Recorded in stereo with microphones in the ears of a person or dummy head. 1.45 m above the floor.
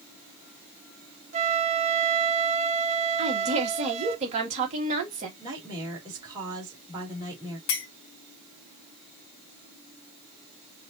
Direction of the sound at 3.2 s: 35° right (ahead or behind).